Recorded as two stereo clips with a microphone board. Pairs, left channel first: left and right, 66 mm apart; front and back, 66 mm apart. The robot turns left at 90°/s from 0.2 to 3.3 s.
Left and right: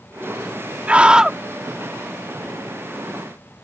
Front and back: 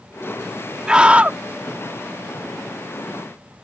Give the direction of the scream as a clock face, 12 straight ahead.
4 o'clock.